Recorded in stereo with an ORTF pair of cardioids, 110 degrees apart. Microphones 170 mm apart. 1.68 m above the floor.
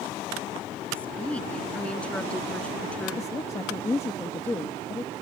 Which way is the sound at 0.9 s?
5° left.